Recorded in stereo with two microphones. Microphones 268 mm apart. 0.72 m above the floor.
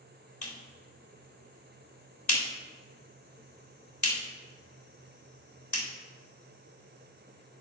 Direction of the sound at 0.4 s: 75° left (ahead or behind).